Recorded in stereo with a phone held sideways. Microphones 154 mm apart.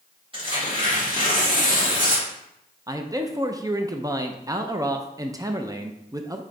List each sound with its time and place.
0.3 s tearing paper: 35° right (ahead or behind), 2.5 m
2.9 s a man speaking: 25° right (ahead or behind), 0.5 m